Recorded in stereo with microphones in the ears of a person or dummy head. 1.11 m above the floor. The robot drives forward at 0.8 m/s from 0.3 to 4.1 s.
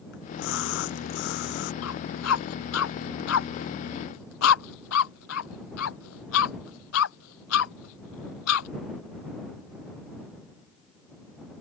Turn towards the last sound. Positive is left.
turn(degrees=85)